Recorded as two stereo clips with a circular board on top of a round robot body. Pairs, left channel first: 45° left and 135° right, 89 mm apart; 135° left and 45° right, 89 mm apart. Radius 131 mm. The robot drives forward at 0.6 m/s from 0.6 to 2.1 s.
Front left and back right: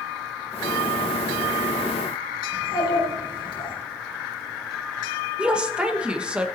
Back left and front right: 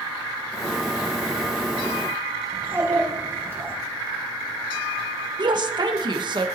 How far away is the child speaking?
About 5 m.